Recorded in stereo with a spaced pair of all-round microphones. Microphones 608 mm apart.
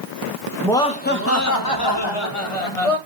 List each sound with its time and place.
0.6 s laughter: centre (ahead or behind), 1.8 m; by 3.0 s 65° left (ahead or behind), 2.5 m